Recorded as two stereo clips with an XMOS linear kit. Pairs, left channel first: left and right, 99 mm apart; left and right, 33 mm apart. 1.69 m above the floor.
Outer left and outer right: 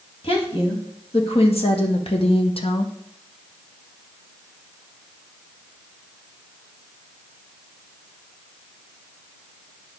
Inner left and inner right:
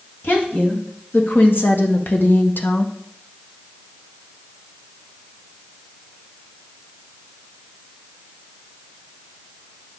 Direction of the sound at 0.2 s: 70° left (ahead or behind).